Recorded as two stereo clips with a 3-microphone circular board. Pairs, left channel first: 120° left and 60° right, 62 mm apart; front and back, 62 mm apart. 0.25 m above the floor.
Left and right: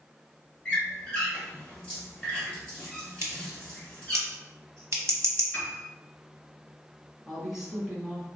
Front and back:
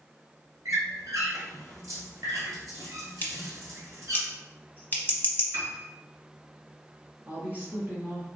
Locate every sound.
0.7 s a squeak: 160° right, 1.8 m
3.2 s scissors: 50° right, 0.7 m
5.5 s a piano: 170° left, 1.6 m
7.3 s a woman speaking: 135° right, 1.2 m